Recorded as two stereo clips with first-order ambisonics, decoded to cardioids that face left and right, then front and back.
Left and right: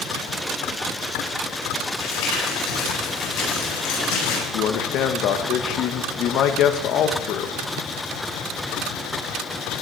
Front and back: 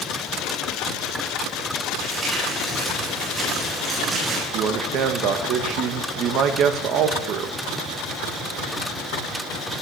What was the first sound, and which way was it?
Crumpling, 110° left.